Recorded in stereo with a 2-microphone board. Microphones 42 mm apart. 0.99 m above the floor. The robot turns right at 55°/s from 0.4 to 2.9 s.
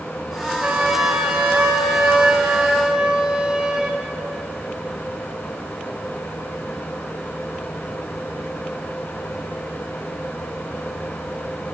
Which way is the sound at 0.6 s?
150° right.